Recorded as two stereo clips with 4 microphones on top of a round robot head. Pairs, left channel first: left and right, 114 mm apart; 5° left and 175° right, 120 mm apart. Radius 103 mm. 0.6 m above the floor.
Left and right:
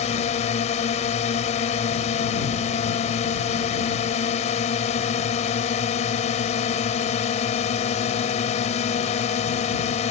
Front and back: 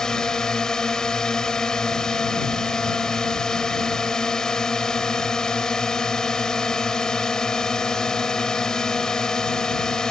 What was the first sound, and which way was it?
A drone, 90° left.